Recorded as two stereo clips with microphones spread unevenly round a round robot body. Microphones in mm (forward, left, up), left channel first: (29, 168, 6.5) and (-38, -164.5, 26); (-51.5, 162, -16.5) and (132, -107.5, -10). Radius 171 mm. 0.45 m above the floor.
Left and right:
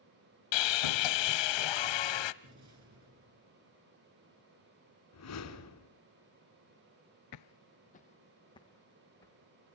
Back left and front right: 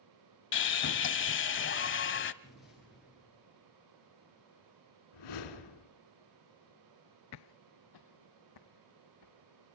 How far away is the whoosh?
About 2.5 m.